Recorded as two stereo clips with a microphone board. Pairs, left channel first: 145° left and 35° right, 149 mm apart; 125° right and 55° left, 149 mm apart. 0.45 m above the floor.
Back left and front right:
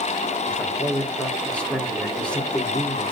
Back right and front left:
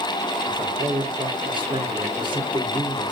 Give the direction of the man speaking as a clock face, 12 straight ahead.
10 o'clock.